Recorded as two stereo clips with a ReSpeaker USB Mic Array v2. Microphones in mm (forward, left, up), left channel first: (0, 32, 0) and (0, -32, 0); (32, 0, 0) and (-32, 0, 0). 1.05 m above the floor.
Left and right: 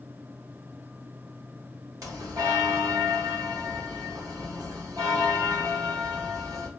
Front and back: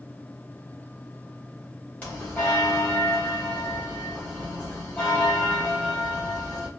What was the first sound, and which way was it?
A bell, 65° right.